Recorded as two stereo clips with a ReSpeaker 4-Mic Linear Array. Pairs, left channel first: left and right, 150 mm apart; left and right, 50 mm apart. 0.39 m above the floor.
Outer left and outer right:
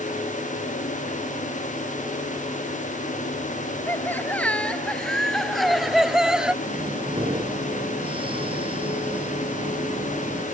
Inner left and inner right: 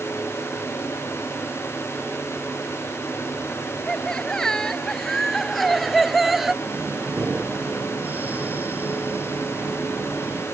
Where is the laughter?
15° left (ahead or behind); by 6.5 s 5° right (ahead or behind).